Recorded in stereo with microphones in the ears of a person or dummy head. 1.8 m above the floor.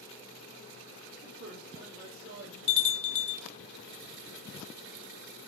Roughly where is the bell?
Left.